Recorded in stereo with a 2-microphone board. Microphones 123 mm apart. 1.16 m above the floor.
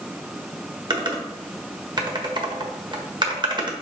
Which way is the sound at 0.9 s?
40° right (ahead or behind).